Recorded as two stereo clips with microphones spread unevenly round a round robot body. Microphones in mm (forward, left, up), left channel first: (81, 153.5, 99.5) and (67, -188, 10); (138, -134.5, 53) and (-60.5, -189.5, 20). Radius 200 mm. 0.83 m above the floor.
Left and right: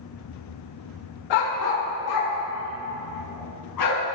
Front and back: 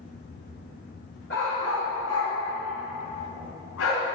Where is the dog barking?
80° left, 1.4 m; by 4.0 s 60° left, 4.5 m.